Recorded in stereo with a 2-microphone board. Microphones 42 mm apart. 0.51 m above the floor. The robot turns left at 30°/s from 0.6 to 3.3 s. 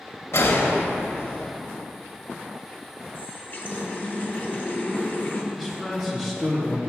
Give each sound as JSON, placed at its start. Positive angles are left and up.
{"t": 0.3, "sound": "a gunshot", "side_deg": 85, "distance_m": 0.8}
{"t": 3.1, "sound": "a running tap", "side_deg": 50, "distance_m": 0.8}
{"t": 5.5, "sound": "a man speaking", "side_deg": 0, "distance_m": 0.8}